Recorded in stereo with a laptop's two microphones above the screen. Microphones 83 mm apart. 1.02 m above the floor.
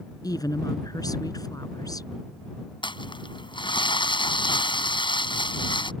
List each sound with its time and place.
0.2 s a woman speaking: 50° left (ahead or behind)
2.8 s crumpling: 75° left (ahead or behind)